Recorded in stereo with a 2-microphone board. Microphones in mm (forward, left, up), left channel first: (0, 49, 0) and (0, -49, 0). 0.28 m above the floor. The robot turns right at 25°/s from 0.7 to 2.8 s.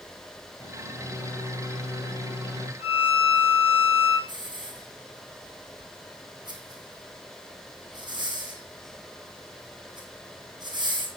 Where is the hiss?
50° right (ahead or behind), 2.0 m.